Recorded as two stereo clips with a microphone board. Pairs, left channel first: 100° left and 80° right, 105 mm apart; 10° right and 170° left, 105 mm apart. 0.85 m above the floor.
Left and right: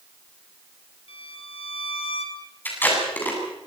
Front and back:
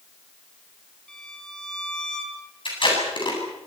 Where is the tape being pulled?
30° left, 9 m.